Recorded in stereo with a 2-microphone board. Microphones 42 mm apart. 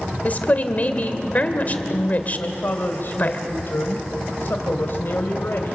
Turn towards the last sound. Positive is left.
turn(degrees=60)  # may be behind; listen again after turning